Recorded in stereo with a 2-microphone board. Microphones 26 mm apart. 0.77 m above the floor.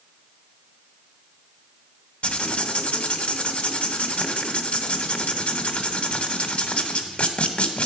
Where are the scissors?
I don't hear scissors.